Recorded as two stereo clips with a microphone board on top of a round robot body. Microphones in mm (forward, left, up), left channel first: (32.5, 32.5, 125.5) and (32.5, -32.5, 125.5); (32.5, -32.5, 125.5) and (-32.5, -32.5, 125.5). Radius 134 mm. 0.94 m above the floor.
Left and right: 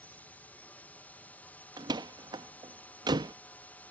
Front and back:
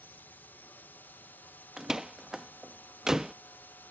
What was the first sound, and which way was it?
A drone, 40° left.